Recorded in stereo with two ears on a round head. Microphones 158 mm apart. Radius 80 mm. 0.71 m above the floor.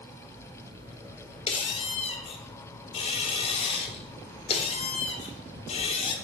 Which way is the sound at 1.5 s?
30° left (ahead or behind).